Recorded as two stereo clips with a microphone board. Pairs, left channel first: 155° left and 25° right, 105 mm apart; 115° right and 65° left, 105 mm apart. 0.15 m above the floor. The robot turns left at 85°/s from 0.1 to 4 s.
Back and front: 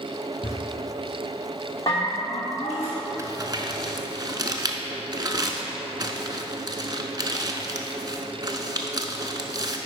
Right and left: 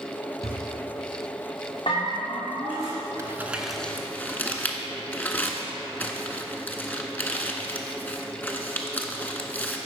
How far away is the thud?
About 2.5 m.